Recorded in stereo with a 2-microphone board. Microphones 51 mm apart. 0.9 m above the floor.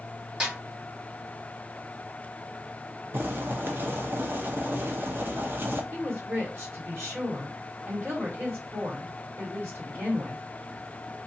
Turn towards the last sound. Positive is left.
turn(degrees=-45)  # may be behind; listen again after turning